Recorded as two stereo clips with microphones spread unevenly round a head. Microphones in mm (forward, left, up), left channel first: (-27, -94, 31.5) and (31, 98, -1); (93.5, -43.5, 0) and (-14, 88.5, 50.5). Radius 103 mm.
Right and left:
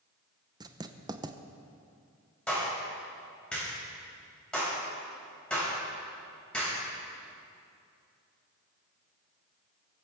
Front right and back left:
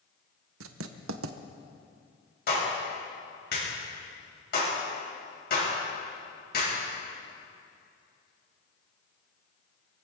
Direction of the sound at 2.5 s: 20° right.